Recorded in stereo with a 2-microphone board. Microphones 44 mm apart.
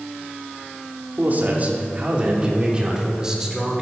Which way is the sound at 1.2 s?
45° right (ahead or behind).